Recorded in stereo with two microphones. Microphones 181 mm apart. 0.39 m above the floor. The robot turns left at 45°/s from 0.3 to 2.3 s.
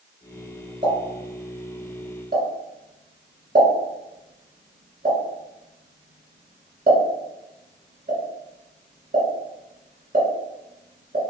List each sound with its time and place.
0.8 s a pop: 45° right (ahead or behind), 1.7 m; by 11.2 s 50° right (ahead or behind), 1.7 m